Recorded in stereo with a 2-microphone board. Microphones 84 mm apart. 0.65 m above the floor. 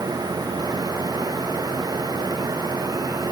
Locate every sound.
Only background noise.